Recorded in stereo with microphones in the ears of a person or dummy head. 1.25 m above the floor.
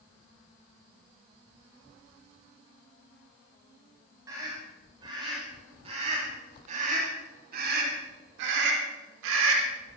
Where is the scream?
20° right (ahead or behind), 5.5 m; by 9.7 s 90° right, 3.5 m.